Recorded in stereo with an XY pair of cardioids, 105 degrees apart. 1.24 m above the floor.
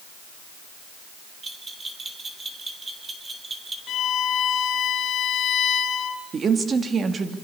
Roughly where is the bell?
Ahead right.